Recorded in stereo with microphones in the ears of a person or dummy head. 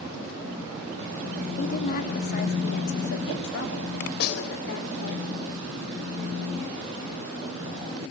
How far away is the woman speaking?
About 3.5 m.